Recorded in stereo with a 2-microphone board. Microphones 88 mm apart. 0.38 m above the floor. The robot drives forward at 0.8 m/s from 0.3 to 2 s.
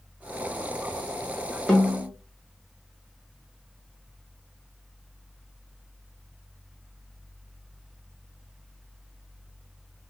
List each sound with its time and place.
1.7 s a snare drum: 5° left (ahead or behind), 1.3 m